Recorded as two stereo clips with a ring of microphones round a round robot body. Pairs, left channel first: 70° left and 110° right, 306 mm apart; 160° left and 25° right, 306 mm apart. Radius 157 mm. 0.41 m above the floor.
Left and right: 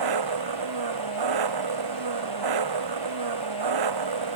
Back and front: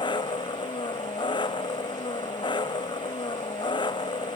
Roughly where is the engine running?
Behind right.